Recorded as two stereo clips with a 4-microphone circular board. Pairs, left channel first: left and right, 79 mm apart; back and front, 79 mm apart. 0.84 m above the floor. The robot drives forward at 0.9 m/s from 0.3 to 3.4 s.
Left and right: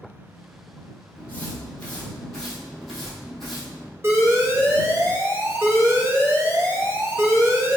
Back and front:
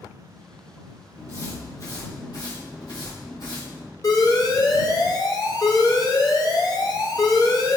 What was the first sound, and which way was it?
Footsteps, 145° left.